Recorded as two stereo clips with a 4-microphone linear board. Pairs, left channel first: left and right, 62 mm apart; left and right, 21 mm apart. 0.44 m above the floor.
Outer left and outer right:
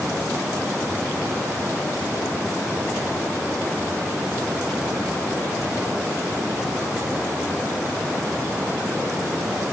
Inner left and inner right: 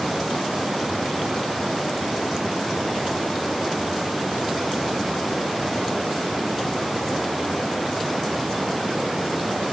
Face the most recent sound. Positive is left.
No sound to turn to.